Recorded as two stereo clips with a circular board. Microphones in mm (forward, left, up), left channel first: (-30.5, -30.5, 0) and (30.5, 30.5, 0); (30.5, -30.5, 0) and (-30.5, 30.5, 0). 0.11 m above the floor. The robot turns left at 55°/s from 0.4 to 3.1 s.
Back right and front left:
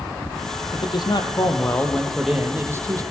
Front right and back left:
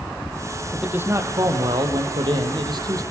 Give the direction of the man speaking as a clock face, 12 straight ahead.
5 o'clock.